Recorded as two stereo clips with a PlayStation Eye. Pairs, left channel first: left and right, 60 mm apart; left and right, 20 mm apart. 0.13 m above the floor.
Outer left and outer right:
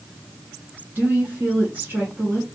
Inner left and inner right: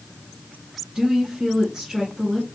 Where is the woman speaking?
30° right (ahead or behind), 1.4 m.